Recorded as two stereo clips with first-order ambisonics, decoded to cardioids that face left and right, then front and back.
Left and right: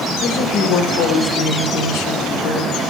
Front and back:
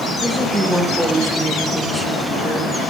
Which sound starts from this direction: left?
A woman speaking, at 0.2 s.